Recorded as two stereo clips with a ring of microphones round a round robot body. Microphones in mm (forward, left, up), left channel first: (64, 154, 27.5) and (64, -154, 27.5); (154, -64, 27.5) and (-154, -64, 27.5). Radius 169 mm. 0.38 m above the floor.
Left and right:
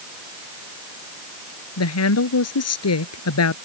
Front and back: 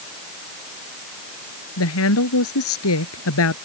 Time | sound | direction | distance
1.8 | a woman speaking | 50° left | ?